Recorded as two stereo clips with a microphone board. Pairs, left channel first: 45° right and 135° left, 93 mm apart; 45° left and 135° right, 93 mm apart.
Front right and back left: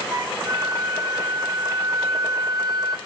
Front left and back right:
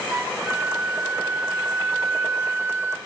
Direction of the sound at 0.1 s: 165° left.